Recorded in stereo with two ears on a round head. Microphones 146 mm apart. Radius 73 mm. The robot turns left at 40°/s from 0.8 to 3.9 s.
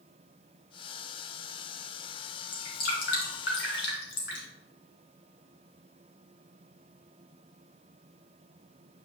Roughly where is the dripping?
Left.